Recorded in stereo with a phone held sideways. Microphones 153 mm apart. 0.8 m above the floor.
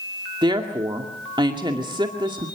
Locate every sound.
0.4 s a woman speaking: 30° right (ahead or behind), 2 m